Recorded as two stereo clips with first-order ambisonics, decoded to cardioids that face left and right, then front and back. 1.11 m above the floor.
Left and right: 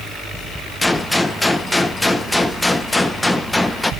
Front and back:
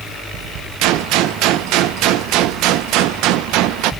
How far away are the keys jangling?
I don't hear keys jangling.